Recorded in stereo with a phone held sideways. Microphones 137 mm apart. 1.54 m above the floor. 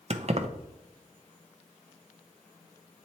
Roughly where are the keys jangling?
Right.